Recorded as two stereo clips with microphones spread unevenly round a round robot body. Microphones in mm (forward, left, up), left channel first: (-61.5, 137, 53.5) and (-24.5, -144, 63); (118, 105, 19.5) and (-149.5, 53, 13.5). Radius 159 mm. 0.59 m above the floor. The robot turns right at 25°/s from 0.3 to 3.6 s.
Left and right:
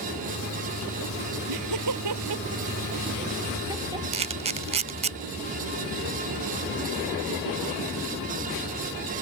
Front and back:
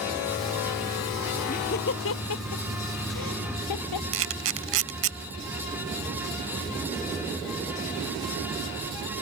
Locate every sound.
1.5 s laughter: 60° right; by 4.0 s 5° right
4.1 s a camera shutter: 140° right